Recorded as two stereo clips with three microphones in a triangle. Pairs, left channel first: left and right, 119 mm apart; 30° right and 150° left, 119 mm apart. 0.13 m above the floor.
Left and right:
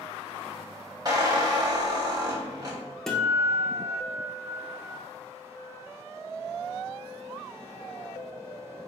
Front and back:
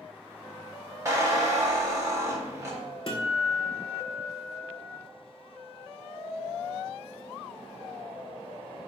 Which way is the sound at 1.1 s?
140° right.